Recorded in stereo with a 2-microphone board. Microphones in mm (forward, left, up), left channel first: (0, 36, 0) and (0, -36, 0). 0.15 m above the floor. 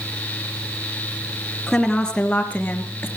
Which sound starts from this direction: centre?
A woman speaking, at 1.7 s.